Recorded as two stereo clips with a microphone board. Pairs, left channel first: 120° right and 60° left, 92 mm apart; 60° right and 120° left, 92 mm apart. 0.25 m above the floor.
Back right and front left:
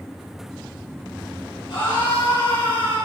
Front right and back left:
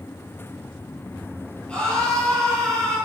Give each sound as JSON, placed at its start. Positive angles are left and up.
{"t": 1.7, "sound": "a scream", "azimuth_deg": -135, "distance_m": 7.0}